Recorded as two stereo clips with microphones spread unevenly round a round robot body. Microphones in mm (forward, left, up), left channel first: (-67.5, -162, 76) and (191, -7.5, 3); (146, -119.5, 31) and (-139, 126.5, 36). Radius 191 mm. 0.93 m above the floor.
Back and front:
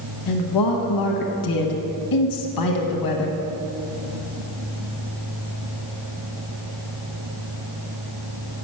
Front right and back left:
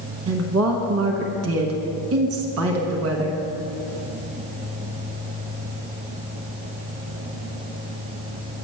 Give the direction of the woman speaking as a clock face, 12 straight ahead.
6 o'clock.